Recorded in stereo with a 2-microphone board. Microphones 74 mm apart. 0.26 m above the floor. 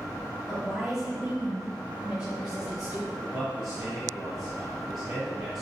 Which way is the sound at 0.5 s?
5° right (ahead or behind).